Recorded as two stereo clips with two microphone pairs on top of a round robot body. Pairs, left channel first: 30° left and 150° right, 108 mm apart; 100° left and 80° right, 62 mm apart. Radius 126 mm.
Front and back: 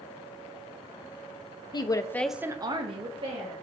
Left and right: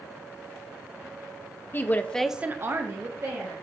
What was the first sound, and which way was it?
A woman speaking, 70° left.